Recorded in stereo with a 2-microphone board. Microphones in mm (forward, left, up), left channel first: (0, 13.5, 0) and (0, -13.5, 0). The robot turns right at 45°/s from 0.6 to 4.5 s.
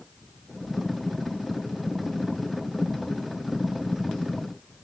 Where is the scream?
No scream in this recording.